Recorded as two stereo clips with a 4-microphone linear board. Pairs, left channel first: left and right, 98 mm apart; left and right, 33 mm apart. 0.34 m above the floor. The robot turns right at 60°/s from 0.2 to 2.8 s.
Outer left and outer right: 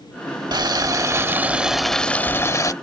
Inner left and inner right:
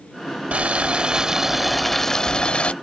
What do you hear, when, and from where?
0.5 s boiling: 80° right; by 2.7 s 55° left